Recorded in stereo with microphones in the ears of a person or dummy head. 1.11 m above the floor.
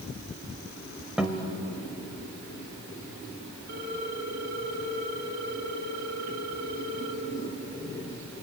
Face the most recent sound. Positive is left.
turn(degrees=-50)  # may be behind; listen again after turning